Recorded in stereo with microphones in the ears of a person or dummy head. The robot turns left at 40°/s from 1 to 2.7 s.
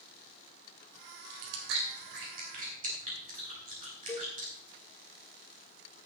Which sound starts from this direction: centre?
A cowbell, at 4.1 s.